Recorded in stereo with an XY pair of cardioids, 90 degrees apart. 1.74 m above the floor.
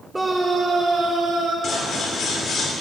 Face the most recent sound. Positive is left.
turn(degrees=55)